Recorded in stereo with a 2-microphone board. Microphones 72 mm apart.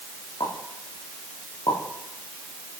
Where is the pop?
85° left, 9 m.